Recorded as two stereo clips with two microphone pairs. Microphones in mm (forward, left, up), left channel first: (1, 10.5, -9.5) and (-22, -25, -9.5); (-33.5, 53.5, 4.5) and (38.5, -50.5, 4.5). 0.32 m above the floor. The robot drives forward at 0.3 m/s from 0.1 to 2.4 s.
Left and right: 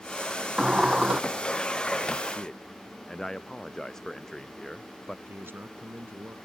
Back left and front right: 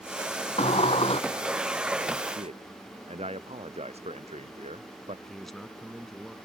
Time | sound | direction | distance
0.6 | a sliding door | 165° left | ?
2.3 | a man speaking | 20° right | ?
5.3 | a man speaking | 145° right | ?